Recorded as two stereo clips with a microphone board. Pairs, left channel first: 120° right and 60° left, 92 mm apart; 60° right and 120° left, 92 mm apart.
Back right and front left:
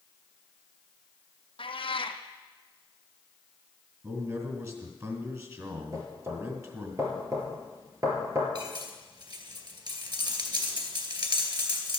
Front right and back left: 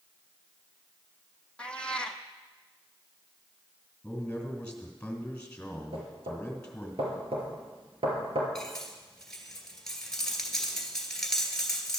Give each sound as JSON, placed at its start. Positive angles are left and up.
{"t": 1.6, "sound": "a cat meowing", "azimuth_deg": -140, "distance_m": 0.9}
{"t": 4.0, "sound": "a man speaking", "azimuth_deg": 15, "distance_m": 2.5}
{"t": 5.9, "sound": "knocking", "azimuth_deg": 115, "distance_m": 3.0}
{"t": 8.6, "sound": "cutlery clinking", "azimuth_deg": 25, "distance_m": 2.0}